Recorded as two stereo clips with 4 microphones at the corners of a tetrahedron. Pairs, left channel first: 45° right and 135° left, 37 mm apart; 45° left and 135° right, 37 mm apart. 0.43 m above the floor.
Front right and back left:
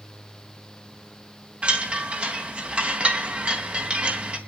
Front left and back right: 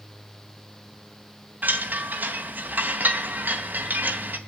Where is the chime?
170° right, 2.5 m.